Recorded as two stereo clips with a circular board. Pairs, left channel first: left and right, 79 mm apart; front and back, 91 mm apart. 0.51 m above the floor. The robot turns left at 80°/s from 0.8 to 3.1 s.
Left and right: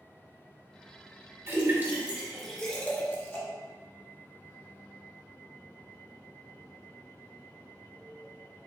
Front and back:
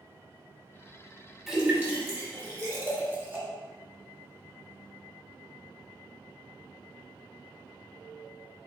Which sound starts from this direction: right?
A splash, at 1.5 s.